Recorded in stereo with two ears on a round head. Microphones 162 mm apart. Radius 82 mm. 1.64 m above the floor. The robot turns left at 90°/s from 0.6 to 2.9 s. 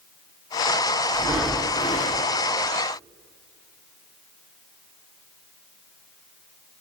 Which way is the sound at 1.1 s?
150° right.